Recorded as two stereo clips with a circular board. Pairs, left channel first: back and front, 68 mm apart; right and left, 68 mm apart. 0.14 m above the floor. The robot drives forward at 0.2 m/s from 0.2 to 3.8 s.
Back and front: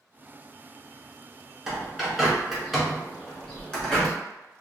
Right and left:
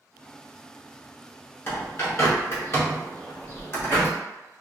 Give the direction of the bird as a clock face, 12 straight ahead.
3 o'clock.